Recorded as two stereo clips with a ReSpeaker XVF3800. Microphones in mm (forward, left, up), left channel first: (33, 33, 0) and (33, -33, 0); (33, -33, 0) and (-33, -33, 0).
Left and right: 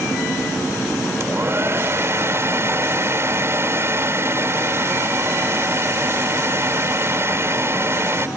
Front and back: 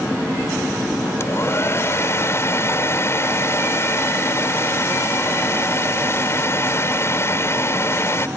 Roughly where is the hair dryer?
Ahead right.